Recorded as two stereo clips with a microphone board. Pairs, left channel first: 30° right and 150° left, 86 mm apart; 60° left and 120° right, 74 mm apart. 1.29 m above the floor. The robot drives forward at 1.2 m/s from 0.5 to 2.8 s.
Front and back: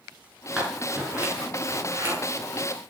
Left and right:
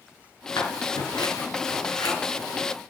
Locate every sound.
0.6 s scissors: 70° left, 6.5 m; by 2.1 s 85° left, 6 m